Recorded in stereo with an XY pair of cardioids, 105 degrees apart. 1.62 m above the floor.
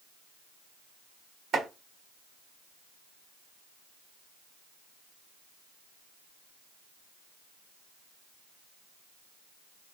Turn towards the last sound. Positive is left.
turn(degrees=-60)